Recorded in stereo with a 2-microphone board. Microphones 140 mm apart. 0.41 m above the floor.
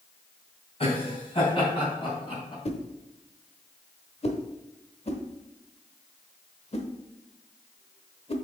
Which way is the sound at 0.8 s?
45° left (ahead or behind).